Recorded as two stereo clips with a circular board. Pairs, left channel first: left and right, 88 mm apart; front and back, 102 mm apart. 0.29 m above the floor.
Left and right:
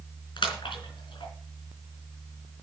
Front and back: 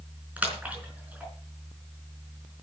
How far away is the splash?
About 4 m.